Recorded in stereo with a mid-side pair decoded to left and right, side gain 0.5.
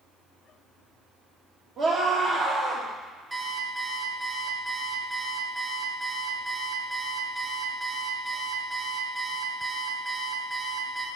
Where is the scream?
55° right, 1.8 m.